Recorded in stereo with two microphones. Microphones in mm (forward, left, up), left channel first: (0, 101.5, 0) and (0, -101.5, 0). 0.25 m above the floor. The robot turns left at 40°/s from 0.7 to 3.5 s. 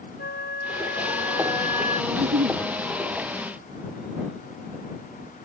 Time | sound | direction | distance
0.2 | a flute | 95° left | ?
2.1 | a giggle | 60° right (ahead or behind) | ?